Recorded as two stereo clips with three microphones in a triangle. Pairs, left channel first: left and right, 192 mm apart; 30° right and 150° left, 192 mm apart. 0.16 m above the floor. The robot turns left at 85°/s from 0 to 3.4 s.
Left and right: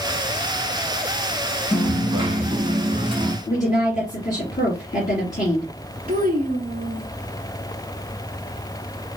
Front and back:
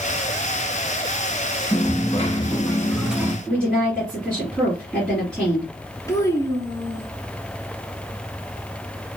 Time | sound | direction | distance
1.7 | a dropped coin | 5° right | 0.7 m
3.5 | a woman speaking | 55° left | 3 m
6.1 | a child speaking | 100° right | 1.3 m